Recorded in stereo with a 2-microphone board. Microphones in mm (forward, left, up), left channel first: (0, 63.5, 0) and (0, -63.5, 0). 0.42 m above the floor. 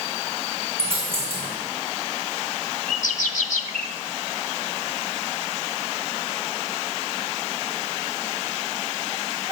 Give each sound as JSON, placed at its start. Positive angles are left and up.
{"t": 0.8, "sound": "a dropped coin", "side_deg": -45, "distance_m": 3.5}
{"t": 2.9, "sound": "a bird", "side_deg": 80, "distance_m": 0.6}